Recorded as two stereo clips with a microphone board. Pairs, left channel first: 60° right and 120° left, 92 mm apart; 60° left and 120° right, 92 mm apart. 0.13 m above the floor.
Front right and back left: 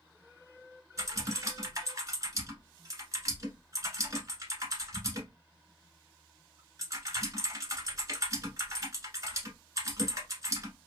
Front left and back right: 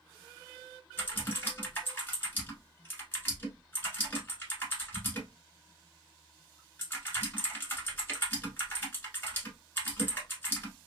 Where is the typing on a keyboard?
110° left, 1.0 m.